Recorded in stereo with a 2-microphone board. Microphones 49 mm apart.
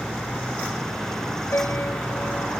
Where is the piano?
60° left (ahead or behind).